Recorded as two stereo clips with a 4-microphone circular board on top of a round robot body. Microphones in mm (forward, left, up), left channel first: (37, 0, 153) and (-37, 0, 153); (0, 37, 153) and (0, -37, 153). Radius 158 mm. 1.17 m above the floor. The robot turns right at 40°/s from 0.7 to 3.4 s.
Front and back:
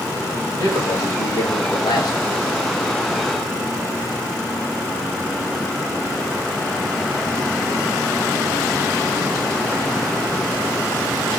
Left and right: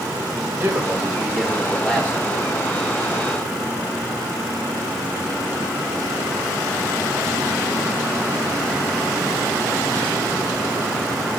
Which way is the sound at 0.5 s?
35° right.